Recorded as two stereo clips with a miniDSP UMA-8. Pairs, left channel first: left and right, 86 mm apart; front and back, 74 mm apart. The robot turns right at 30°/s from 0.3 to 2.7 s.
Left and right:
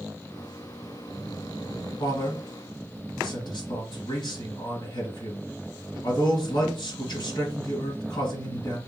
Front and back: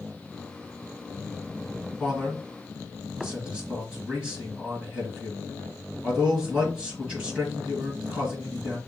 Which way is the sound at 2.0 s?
85° left.